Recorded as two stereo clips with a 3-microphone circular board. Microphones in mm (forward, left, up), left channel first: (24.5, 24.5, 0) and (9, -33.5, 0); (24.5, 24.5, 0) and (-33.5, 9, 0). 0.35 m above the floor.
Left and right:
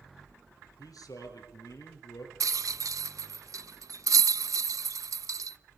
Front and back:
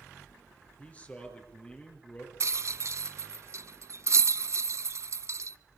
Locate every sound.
0.8 s a man speaking: 85° left, 6 m
2.4 s a rattle: 125° right, 0.5 m